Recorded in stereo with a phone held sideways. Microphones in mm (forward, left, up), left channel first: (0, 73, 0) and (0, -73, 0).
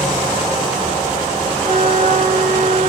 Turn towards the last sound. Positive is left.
turn(degrees=-60)  # may be behind; listen again after turning